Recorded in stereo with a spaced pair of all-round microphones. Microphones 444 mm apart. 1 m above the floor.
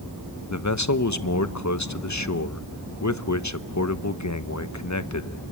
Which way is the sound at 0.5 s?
40° left (ahead or behind).